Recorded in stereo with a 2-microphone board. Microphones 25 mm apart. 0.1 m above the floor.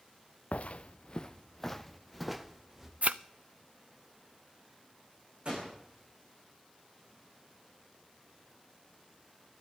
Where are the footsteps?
70° left (ahead or behind), 0.6 m; by 2.9 s 10° right (ahead or behind), 1.3 m.